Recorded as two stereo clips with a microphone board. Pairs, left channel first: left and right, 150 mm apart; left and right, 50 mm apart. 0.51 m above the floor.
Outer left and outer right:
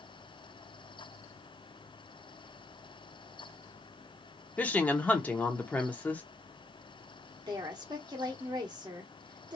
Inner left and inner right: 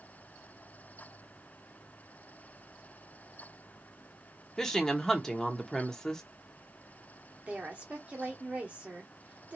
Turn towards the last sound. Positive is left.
turn(degrees=-25)  # may be behind; listen again after turning